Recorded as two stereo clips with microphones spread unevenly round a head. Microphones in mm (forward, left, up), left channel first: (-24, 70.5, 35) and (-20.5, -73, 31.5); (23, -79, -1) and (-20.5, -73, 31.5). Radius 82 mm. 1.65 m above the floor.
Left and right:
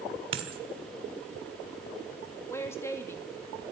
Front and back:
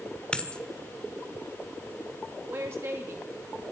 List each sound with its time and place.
0.3 s a dropped coin: 115° right, 1.5 m
2.5 s a woman speaking: 165° left, 2.5 m